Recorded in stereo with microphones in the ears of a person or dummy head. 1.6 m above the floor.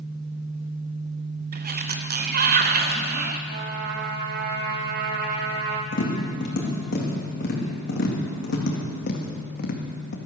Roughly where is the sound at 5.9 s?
Left.